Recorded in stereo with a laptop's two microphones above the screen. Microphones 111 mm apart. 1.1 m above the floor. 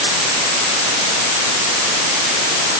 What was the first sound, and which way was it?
Only background noise.